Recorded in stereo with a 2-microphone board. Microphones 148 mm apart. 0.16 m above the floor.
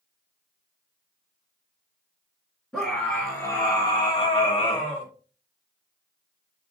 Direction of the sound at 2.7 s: 10° left (ahead or behind).